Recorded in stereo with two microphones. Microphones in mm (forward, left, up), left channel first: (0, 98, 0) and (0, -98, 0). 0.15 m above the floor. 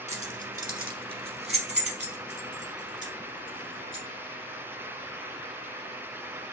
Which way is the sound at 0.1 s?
35° right (ahead or behind).